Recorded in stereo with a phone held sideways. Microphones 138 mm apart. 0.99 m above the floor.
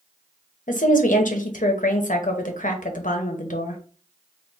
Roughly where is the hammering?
I don't hear hammering.